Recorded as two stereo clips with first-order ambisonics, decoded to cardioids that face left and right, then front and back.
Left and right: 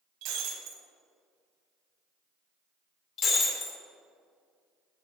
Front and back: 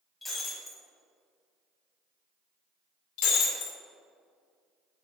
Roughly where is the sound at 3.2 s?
Ahead left.